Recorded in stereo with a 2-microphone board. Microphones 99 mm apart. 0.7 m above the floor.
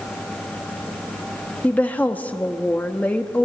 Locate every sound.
1.6 s a woman speaking: 15° left (ahead or behind), 1.0 m